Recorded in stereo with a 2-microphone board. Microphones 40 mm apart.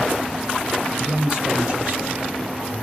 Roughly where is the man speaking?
Right.